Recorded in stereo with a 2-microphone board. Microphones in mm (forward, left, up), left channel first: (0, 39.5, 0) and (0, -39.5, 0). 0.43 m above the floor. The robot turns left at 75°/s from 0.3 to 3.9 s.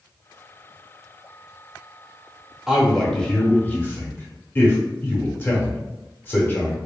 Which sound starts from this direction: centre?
A man speaking, at 2.7 s.